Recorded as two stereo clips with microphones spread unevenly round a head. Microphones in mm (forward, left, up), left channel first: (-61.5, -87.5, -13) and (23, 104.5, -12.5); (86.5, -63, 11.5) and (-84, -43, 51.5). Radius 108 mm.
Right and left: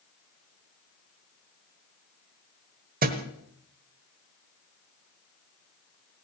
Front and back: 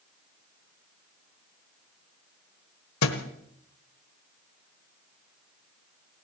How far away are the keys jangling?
No keys jangling in this recording.